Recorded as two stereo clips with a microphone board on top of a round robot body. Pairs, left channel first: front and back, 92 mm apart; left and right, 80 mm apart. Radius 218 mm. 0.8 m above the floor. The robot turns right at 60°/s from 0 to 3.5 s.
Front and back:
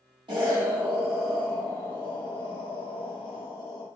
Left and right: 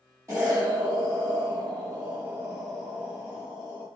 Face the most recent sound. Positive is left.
turn(degrees=50)